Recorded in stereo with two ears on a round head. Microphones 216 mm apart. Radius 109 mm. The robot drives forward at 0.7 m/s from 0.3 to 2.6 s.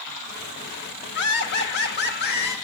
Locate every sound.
1.1 s laughter: 50° left (ahead or behind), 1.5 m; by 2.5 s 45° left (ahead or behind), 1.7 m